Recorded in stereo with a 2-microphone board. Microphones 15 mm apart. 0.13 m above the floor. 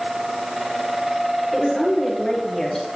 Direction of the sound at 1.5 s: 35° left (ahead or behind).